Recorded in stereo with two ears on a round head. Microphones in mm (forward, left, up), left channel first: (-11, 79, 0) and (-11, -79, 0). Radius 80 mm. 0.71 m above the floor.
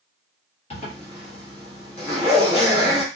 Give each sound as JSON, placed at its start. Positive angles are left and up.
{"t": 0.7, "sound": "a zipper", "side_deg": 35, "distance_m": 1.1}